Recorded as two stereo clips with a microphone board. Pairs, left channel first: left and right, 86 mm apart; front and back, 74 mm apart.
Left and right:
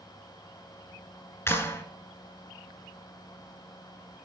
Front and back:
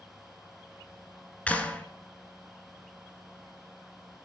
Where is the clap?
60° left, 1.2 m.